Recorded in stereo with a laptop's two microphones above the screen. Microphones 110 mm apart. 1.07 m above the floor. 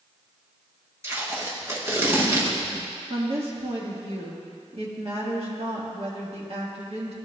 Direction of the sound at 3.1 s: 60° right (ahead or behind).